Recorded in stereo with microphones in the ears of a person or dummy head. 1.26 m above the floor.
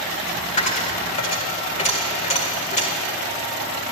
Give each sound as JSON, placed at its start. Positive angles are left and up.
{"t": 0.6, "sound": "a dropped coin", "side_deg": 35, "distance_m": 2.0}